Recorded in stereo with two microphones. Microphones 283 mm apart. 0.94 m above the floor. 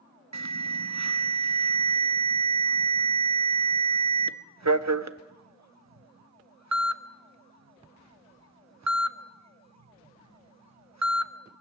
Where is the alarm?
70° right (ahead or behind), 0.8 m.